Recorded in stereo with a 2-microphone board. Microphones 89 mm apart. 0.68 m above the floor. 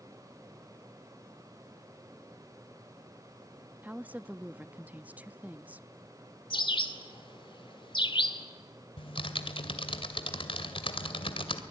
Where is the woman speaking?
15° right (ahead or behind), 0.5 m.